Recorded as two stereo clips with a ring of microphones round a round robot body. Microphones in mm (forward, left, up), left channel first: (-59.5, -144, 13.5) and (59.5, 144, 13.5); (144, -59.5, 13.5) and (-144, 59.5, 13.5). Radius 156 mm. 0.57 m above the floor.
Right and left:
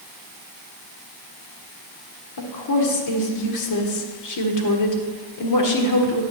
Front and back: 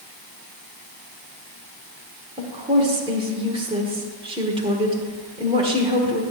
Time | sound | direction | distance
2.4 | a woman speaking | 130° right | 1.4 m